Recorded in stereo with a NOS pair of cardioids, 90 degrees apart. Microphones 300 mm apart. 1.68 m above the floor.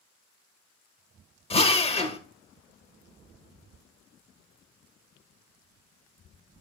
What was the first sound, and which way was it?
A drill, 20° left.